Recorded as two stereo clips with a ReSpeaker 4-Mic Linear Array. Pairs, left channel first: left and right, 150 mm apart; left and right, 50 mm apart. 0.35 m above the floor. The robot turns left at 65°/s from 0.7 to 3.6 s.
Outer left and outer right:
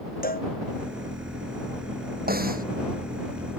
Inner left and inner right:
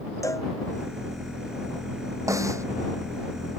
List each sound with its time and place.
0.2 s a cowbell: 75° left (ahead or behind)
2.3 s a snare drum: 85° right; by 2.6 s 70° right (ahead or behind)